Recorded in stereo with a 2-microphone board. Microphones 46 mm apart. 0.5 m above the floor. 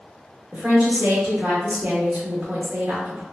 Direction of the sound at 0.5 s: 40° right (ahead or behind).